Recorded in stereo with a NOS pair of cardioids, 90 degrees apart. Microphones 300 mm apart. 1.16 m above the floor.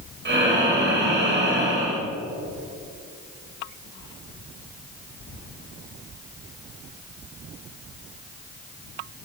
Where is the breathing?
35° right, 4.5 m.